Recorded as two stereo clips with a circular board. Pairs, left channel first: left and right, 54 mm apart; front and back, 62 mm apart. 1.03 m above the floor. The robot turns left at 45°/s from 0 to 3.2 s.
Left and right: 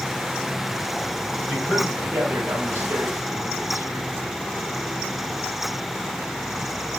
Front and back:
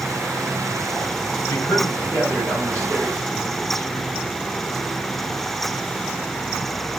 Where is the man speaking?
15° right, 2.5 m; by 4.1 s 90° right, 2.5 m.